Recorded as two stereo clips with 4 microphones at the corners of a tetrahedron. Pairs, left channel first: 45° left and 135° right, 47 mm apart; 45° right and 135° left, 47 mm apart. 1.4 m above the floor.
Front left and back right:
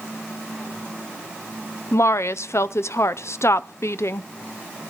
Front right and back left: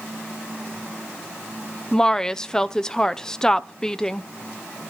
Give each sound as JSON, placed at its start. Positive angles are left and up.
{"t": 1.9, "sound": "a woman speaking", "azimuth_deg": 30, "distance_m": 0.6}